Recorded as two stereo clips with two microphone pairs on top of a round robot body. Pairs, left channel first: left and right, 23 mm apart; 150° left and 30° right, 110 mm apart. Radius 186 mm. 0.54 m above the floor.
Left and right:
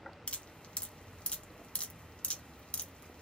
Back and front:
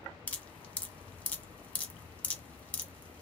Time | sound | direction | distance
0.3 | dripping | 75° left | 1.7 m